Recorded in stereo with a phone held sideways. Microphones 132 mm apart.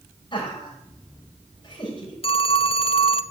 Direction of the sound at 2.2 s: 45° left (ahead or behind).